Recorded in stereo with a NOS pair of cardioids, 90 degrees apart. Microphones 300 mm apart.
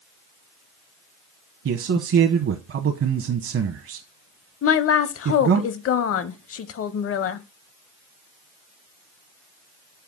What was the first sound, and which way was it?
A man speaking, 50° right.